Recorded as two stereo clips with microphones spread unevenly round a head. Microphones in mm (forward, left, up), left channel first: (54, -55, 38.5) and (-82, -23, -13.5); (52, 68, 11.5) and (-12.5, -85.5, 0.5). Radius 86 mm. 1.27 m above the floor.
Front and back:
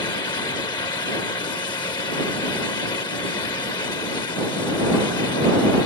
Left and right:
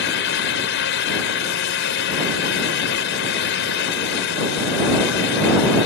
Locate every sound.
0.0 s a fan: 55° left